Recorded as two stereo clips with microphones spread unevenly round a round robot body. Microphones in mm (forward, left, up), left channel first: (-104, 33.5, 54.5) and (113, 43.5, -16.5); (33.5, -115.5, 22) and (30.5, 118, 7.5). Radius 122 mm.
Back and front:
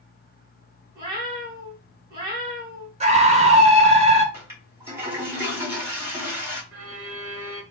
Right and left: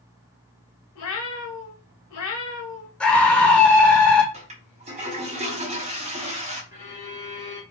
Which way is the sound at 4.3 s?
50° left.